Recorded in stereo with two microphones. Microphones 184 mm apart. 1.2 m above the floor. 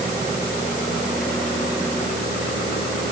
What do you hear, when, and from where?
Only background noise.